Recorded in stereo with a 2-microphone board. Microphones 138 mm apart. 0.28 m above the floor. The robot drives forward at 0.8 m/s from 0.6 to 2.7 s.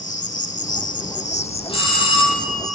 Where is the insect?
65° left (ahead or behind), 0.9 m; by 2.8 s 30° left (ahead or behind), 1.7 m.